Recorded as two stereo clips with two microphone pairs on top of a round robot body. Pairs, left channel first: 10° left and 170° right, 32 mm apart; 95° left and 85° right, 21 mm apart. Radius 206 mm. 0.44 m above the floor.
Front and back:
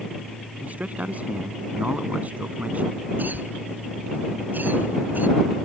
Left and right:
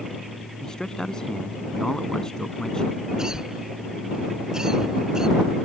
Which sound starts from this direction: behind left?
A man speaking, at 0.6 s.